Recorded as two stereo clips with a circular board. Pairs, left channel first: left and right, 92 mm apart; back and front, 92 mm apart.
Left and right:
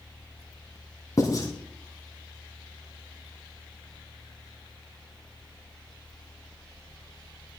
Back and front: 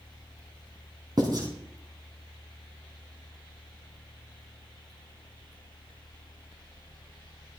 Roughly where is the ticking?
I don't hear ticking.